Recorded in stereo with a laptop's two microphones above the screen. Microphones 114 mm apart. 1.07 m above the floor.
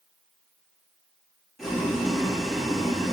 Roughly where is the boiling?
Centre.